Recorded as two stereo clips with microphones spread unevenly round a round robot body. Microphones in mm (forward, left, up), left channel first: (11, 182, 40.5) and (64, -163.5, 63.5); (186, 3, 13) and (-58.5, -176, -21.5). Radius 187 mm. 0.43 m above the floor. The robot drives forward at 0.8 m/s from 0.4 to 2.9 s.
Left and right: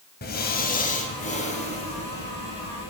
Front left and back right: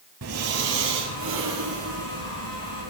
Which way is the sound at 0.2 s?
165° left.